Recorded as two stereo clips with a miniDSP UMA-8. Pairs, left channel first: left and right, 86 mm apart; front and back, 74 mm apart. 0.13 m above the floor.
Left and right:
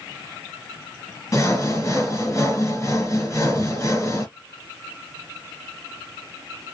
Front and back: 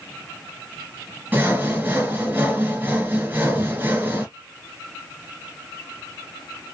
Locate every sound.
1.3 s sawing: 125° left, 1.7 m